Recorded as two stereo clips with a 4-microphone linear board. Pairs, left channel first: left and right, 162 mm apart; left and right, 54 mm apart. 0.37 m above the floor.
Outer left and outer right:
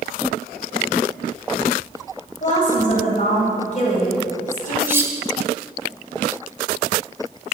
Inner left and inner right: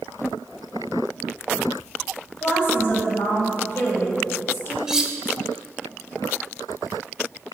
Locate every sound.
2.4 s a woman speaking: 50° left (ahead or behind), 1.6 m
4.9 s cutlery clinking: 15° right (ahead or behind), 0.6 m